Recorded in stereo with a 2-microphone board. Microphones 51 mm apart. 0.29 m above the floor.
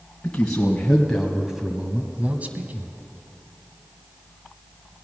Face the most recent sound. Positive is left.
turn(degrees=-45)  # may be behind; listen again after turning